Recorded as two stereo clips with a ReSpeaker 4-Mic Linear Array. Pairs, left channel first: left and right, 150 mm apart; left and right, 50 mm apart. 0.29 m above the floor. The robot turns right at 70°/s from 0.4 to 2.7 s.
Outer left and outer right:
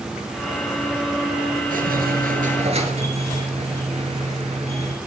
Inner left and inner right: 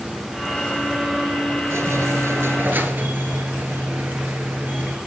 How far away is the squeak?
About 1.7 m.